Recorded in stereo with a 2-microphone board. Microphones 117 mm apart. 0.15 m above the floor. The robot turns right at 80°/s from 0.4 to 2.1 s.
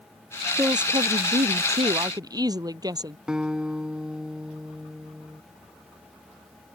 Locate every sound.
0.6 s a woman speaking: 155° right; by 3.2 s 35° right
3.3 s a guitar: 5° right (ahead or behind)